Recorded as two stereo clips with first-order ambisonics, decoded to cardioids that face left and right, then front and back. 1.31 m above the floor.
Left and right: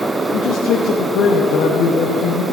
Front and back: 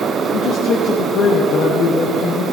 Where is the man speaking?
50° left, 0.8 m.